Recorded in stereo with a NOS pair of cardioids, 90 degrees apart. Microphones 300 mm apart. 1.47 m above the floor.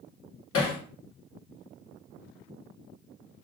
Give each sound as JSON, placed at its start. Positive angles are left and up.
{"t": 0.5, "sound": "hammering", "azimuth_deg": 50, "distance_m": 1.4}